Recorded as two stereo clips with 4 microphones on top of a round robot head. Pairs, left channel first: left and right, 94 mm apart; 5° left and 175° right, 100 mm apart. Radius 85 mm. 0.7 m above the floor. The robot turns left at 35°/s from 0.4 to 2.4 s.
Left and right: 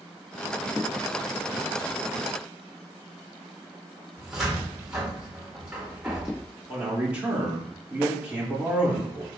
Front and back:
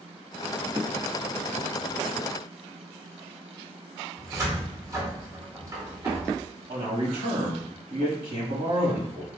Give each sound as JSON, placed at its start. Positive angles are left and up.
{"t": 4.2, "sound": "a cupboard door", "azimuth_deg": -170, "distance_m": 1.3}
{"t": 6.7, "sound": "a man speaking", "azimuth_deg": -165, "distance_m": 1.9}